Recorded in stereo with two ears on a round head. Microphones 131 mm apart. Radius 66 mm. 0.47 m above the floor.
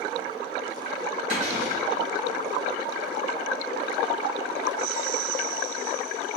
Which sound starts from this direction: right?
A cupboard door, at 1.3 s.